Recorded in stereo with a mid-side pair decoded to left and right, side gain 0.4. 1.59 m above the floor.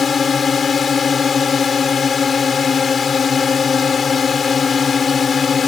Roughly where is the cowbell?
I don't hear a cowbell.